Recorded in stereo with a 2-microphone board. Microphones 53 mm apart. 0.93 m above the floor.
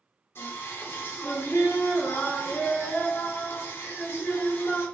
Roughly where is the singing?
Left.